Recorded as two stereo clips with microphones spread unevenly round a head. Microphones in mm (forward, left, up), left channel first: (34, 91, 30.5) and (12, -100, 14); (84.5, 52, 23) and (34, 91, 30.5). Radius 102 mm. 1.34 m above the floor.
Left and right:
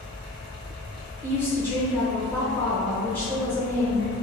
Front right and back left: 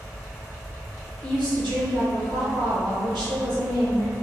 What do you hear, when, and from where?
0.0 s a fan: 120° left, 1.7 m
1.2 s a woman speaking: 165° left, 1.0 m